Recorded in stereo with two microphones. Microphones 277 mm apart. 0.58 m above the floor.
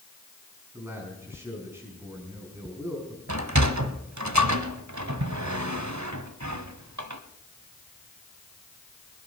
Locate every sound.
0.7 s a man speaking: 10° right (ahead or behind), 6.5 m
3.3 s a sliding door: 80° right, 1.3 m